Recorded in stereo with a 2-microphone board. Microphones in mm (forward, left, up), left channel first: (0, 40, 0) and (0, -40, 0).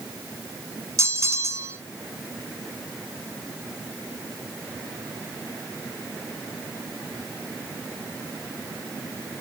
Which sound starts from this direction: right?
A bell, at 1.0 s.